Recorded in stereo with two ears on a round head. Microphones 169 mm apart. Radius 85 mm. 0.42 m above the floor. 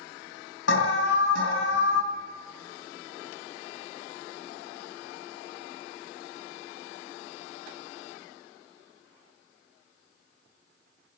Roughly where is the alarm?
Left.